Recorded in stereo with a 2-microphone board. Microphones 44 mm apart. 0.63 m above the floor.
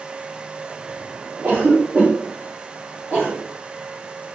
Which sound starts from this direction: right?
A cough, at 1.4 s.